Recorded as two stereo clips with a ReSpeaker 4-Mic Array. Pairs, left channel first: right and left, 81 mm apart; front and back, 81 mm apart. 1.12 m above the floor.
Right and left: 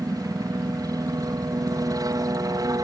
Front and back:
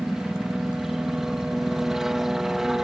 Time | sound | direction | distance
0.0 | a helicopter | 95° left | ?